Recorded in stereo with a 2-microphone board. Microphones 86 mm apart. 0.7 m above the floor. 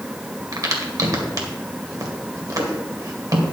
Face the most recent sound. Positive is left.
turn(degrees=-45)  # may be behind; listen again after turning